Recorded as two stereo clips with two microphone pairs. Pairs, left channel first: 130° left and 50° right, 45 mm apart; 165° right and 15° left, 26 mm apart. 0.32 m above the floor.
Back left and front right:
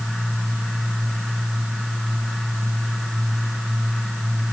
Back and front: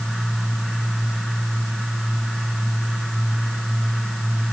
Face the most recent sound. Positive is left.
No sound to turn to.